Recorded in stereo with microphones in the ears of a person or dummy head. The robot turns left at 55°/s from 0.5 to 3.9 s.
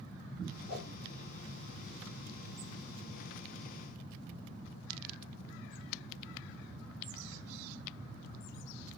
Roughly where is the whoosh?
Left.